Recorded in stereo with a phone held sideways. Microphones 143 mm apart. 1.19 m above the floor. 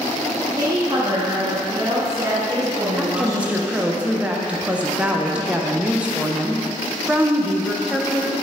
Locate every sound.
0.6 s a woman speaking: 25° right (ahead or behind), 1.5 m
3.0 s a woman speaking: 10° right (ahead or behind), 0.6 m